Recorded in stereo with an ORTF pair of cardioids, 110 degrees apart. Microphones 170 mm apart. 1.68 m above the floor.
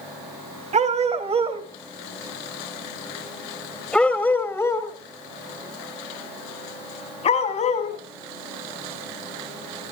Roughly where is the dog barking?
Ahead right.